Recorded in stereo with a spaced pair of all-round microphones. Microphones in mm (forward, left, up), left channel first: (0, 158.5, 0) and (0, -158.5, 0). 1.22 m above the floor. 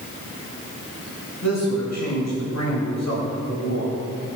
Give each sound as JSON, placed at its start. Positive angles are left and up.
{"t": 1.4, "sound": "a man speaking", "side_deg": 75, "distance_m": 3.5}